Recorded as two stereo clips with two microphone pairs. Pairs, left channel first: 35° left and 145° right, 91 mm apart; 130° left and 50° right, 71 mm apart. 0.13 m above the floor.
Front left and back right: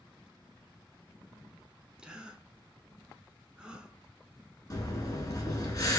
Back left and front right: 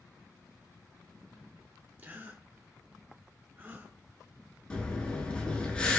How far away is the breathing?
About 1.0 m.